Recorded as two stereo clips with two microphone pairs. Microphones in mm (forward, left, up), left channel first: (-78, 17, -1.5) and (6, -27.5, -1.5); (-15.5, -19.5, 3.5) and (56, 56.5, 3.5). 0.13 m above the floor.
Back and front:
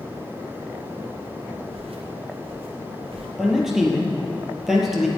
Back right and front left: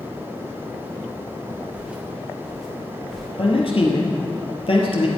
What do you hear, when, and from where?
1.7 s footsteps: 30° right, 2 m; by 3.3 s 45° right, 3 m
3.4 s a man speaking: 115° right, 2.5 m